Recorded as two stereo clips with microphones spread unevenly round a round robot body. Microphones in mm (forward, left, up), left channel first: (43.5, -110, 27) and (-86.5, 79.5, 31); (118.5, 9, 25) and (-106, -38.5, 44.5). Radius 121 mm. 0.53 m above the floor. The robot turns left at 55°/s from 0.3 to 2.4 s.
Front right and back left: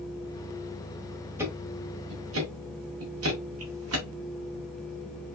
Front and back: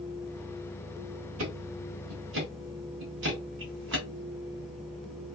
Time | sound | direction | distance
1.4 | ticking | 155° right | 1.7 m